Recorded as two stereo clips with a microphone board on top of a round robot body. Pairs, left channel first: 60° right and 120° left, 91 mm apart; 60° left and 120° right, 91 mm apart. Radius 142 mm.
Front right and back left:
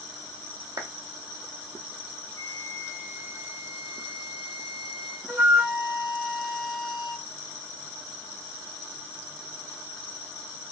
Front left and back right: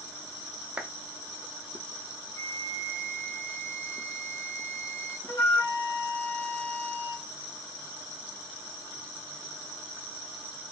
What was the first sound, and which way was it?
A clap, 160° left.